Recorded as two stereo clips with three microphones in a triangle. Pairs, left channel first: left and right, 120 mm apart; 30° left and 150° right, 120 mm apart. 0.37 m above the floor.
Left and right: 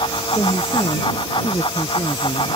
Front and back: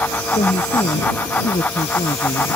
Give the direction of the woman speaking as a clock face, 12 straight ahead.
11 o'clock.